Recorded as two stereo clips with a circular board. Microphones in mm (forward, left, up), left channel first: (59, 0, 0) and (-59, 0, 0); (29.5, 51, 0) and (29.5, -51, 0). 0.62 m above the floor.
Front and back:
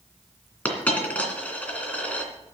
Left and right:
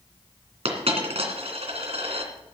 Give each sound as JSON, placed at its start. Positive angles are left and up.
{"t": 0.7, "sound": "a dropped coin", "azimuth_deg": -80, "distance_m": 2.5}